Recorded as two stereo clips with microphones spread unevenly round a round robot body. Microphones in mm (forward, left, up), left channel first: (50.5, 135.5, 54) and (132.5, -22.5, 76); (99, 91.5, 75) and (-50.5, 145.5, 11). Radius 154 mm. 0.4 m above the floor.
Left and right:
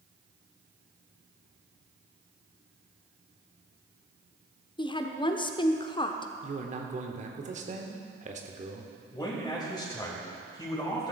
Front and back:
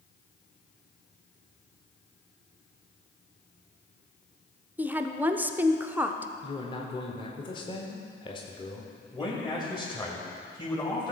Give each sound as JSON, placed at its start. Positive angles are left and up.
{"t": 4.8, "sound": "a woman speaking", "azimuth_deg": 140, "distance_m": 0.9}
{"t": 6.4, "sound": "a man speaking", "azimuth_deg": -100, "distance_m": 1.3}
{"t": 9.1, "sound": "a man speaking", "azimuth_deg": 55, "distance_m": 2.5}